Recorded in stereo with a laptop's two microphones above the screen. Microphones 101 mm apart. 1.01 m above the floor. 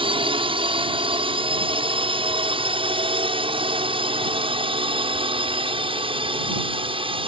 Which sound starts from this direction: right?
A drone, at 0.0 s.